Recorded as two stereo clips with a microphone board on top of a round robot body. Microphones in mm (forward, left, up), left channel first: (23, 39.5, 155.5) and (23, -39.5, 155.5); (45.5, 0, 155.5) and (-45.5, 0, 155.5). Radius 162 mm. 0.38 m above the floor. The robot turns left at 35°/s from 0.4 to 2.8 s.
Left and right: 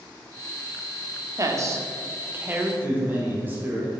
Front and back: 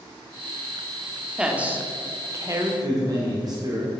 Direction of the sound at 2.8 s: 145° right.